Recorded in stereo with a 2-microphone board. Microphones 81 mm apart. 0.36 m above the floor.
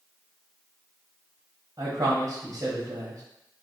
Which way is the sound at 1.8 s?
45° right (ahead or behind).